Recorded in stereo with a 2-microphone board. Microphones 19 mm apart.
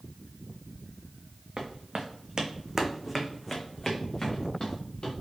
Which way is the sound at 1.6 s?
65° right (ahead or behind).